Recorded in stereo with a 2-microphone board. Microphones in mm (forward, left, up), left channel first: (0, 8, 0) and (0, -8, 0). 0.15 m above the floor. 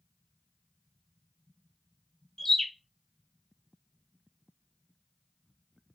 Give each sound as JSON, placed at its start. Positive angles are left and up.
{"t": 2.4, "sound": "a bird", "side_deg": 35, "distance_m": 0.6}